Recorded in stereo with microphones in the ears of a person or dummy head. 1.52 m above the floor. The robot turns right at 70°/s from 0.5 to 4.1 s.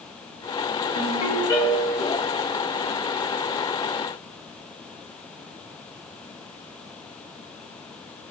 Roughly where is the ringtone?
Behind left.